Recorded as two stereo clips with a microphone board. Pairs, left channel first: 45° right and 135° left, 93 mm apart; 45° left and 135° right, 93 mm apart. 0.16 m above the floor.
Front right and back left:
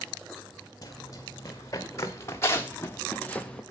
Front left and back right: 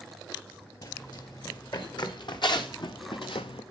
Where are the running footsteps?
5° left, 2.5 m; by 3.6 s 35° left, 0.8 m.